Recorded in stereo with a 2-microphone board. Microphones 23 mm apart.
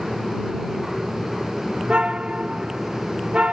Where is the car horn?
55° right (ahead or behind).